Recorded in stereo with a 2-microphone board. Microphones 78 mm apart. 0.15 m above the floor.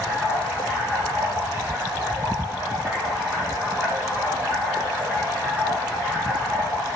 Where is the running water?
25° right (ahead or behind), 7 m.